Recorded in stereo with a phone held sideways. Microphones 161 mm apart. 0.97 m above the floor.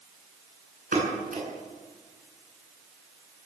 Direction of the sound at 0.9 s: 65° right (ahead or behind).